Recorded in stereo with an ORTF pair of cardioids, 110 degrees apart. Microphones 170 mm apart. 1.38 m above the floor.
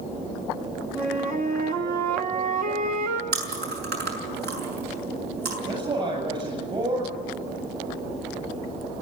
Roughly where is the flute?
Ahead right.